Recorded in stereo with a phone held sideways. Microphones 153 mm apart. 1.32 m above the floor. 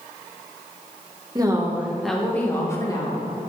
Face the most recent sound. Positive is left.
turn(degrees=30)  # may be behind; listen again after turning